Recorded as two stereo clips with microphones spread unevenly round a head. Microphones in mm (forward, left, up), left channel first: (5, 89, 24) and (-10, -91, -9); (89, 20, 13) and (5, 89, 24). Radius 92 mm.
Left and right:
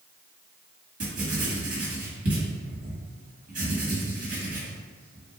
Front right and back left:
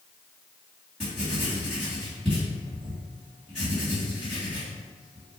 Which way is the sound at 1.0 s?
135° right.